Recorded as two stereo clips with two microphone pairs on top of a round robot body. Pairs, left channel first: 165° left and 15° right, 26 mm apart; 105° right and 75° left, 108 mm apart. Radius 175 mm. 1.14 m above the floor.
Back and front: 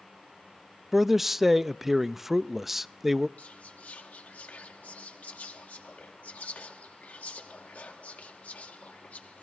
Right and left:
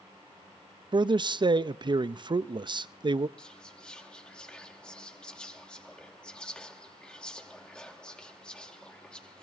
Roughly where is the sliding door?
No sliding door in this recording.